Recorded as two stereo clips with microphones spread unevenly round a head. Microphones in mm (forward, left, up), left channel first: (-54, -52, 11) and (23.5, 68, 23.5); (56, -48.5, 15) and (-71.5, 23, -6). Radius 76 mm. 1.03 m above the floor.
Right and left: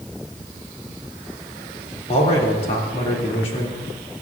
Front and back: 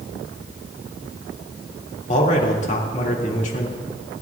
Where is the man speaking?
70° right, 2 m.